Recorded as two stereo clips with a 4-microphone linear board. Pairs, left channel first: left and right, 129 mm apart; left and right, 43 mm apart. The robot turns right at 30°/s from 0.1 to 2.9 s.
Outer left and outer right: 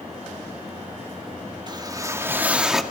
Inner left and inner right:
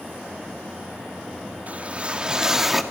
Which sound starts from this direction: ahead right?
A whoosh, at 1.7 s.